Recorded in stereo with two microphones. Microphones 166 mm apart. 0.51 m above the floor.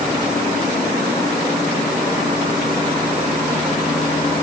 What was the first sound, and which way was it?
Only background noise.